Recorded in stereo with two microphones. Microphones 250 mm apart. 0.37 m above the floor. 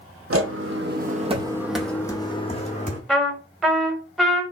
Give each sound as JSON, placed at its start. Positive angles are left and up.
{"t": 0.3, "sound": "footsteps", "side_deg": -65, "distance_m": 0.8}
{"t": 3.1, "sound": "a trumpet", "side_deg": 0, "distance_m": 0.8}